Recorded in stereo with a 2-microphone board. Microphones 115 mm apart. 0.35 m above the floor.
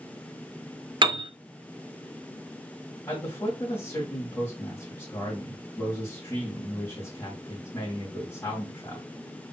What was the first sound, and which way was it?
A piano, 45° right (ahead or behind).